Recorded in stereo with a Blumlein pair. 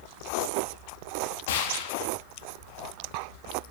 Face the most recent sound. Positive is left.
turn(degrees=50)